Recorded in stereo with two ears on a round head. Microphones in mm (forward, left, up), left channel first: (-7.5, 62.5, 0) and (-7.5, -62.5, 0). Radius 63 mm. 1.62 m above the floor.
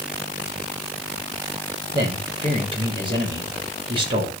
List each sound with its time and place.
1.9 s a man speaking: 40° right (ahead or behind), 6 m